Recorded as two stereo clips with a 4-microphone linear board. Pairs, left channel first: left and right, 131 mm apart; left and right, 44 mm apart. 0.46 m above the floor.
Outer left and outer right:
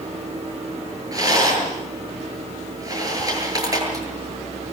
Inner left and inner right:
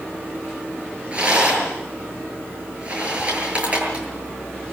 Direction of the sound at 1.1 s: 25° right (ahead or behind).